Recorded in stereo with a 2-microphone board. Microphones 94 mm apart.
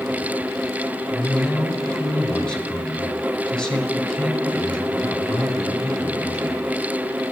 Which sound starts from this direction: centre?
A man speaking, at 1.1 s.